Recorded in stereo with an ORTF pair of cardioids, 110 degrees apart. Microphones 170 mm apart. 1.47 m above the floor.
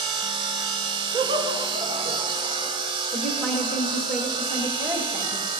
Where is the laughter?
35° right, 1.9 m.